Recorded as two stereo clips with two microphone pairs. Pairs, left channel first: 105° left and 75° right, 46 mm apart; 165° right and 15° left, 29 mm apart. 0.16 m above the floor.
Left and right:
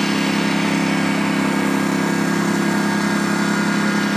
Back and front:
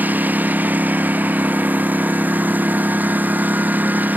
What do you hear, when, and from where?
0.0 s a lawn mower: 15° left